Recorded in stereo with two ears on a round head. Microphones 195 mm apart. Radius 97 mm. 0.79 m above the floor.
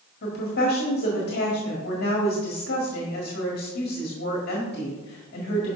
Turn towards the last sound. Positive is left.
turn(degrees=45)  # may be behind; listen again after turning